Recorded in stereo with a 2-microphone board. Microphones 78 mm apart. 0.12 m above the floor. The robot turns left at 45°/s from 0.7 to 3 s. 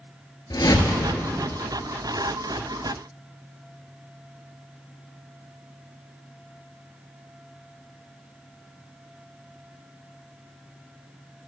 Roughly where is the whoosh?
Left.